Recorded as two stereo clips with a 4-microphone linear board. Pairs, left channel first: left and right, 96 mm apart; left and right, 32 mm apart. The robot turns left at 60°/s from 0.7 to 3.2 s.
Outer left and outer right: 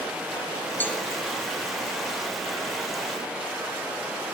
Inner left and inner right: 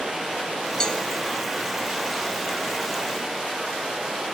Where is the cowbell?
20° left (ahead or behind), 1.2 m; by 1.0 s 10° left (ahead or behind), 1.2 m.